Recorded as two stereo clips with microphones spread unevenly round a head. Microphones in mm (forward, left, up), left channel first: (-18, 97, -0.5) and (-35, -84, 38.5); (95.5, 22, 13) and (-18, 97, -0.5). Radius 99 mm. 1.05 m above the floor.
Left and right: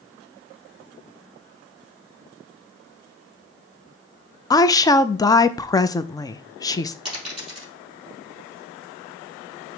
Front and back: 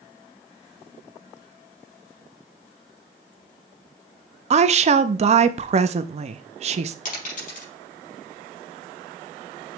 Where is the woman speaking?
140° left, 0.6 m.